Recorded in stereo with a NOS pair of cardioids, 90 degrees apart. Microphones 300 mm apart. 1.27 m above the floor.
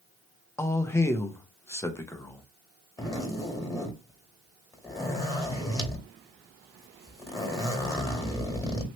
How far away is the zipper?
About 1.7 m.